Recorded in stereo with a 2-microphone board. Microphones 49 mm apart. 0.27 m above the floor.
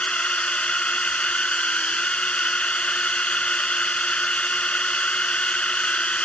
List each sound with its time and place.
0.0 s a drone: 25° left (ahead or behind)